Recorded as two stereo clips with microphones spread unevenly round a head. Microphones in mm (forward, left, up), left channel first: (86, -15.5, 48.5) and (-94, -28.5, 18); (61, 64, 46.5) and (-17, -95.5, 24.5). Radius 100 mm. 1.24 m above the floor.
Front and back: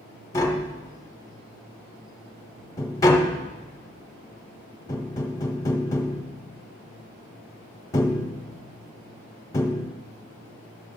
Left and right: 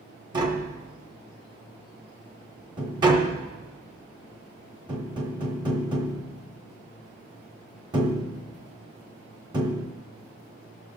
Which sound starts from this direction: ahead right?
Tapping, at 0.3 s.